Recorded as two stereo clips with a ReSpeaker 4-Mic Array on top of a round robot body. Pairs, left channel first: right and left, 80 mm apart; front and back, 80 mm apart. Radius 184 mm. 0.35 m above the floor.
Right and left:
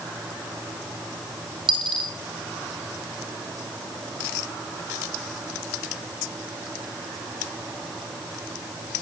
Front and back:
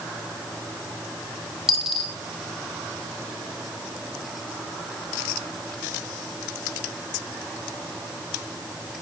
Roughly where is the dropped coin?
Left.